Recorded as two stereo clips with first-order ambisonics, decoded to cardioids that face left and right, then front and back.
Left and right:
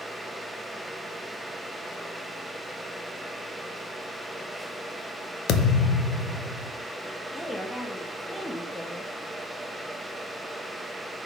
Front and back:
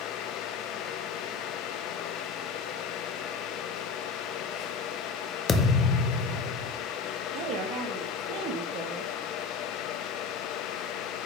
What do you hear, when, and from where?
5.5 s a thud: 60° left, 0.7 m
7.3 s a woman speaking: 175° left, 1.1 m